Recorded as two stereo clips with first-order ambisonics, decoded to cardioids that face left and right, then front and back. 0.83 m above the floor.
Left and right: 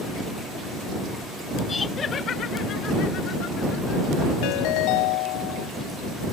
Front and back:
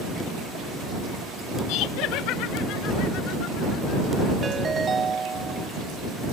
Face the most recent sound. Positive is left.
turn(degrees=110)